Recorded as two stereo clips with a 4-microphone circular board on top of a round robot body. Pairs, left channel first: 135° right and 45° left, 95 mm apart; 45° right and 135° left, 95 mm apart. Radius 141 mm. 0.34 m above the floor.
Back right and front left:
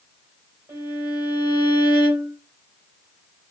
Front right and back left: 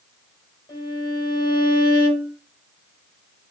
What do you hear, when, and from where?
0.7 s a violin: 10° right, 2.5 m